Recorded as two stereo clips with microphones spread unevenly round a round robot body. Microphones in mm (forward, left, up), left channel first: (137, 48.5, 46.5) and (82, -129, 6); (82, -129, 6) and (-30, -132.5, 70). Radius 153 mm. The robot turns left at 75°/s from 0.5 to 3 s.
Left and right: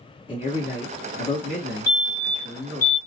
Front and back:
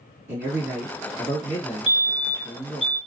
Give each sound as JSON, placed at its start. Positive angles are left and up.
{"t": 0.3, "sound": "a man speaking", "azimuth_deg": 160, "distance_m": 2.0}
{"t": 1.9, "sound": "a fire alarm", "azimuth_deg": 120, "distance_m": 1.9}